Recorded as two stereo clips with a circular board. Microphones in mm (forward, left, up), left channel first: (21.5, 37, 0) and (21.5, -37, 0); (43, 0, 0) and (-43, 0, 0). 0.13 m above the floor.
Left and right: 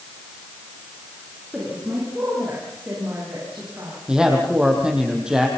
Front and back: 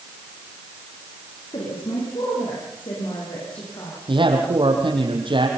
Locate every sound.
1.5 s a woman speaking: 15° right, 9.5 m; by 4.0 s 30° right, 11 m
4.1 s a man speaking: 170° right, 4.5 m